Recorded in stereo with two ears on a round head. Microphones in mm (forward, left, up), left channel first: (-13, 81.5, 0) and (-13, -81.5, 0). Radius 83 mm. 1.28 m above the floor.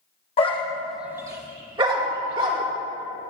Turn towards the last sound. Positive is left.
turn(degrees=-30)  # may be behind; listen again after turning